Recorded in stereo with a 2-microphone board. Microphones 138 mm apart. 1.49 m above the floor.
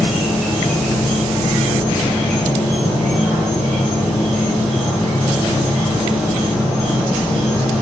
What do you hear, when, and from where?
0.0 s an insect: 5° left (ahead or behind), 1.0 m